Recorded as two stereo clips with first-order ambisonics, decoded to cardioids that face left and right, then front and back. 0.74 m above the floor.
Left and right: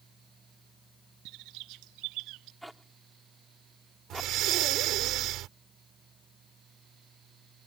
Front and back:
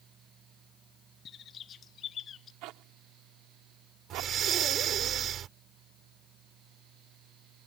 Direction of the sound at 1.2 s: 60° right.